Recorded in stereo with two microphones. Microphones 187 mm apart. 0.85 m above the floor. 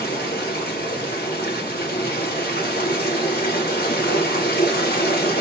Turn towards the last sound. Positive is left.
turn(degrees=55)  # may be behind; listen again after turning